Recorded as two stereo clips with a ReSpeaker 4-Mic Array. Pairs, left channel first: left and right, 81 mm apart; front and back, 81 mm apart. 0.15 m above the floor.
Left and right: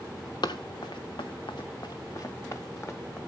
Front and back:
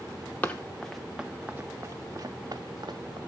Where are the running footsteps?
70° left, 1.0 m; by 3.2 s 150° left, 1.7 m.